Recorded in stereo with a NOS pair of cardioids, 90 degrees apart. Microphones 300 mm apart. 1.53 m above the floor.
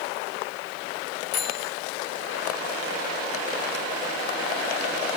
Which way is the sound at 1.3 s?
60° left.